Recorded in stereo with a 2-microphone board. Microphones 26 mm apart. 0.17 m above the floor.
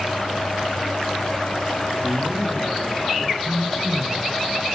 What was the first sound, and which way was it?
A man speaking, 45° left (ahead or behind).